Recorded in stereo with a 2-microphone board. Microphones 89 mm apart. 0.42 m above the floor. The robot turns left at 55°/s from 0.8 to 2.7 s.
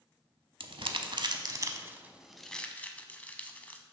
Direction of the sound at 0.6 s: 75° right (ahead or behind).